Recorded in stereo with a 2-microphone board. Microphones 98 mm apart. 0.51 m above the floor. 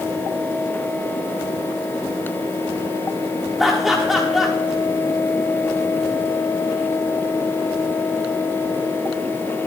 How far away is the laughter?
About 1.2 m.